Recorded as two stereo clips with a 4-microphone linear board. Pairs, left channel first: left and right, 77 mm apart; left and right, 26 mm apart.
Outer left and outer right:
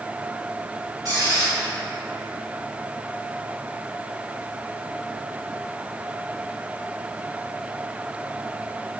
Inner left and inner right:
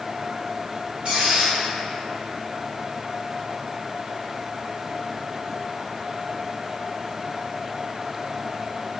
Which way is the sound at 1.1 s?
55° right (ahead or behind).